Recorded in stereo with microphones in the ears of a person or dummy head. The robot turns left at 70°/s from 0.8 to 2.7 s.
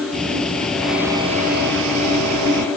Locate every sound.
0.1 s ticking: 5° left; by 2.7 s 125° right